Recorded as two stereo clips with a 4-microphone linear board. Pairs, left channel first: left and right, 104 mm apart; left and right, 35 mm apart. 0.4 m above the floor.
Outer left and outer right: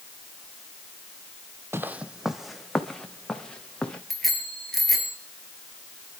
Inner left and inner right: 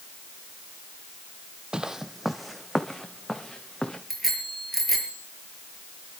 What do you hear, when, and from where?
1.7 s footsteps: 25° right (ahead or behind), 0.7 m; by 4.0 s 10° left (ahead or behind), 3 m
4.1 s a bicycle bell: centre (ahead or behind), 5 m